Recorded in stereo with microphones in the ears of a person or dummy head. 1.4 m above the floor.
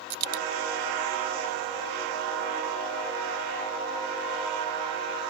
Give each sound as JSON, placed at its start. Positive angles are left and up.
{"t": 0.1, "sound": "a dropped coin", "side_deg": -60}